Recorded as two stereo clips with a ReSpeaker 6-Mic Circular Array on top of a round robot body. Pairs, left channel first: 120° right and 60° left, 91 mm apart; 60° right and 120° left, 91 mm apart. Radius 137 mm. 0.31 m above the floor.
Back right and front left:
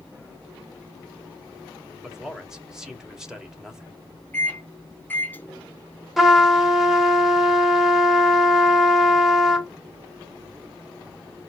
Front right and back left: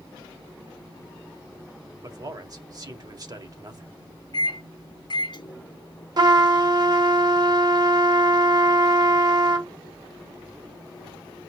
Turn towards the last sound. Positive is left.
turn(degrees=150)